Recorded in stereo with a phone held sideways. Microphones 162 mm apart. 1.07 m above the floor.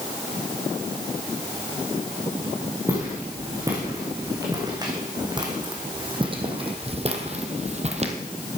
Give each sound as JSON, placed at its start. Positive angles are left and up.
{"t": 2.9, "sound": "footsteps", "side_deg": -20, "distance_m": 4.5}